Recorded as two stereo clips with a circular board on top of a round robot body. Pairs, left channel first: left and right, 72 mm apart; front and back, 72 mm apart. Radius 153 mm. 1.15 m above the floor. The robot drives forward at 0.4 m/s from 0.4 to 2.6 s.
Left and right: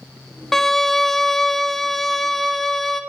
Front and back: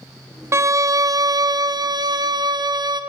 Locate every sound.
0.5 s a violin: 175° left, 0.5 m; by 3.0 s straight behind, 1.2 m